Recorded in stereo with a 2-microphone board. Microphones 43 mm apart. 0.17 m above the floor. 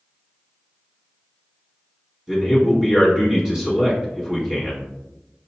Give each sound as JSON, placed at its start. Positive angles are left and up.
{"t": 2.3, "sound": "a man speaking", "side_deg": -15, "distance_m": 1.5}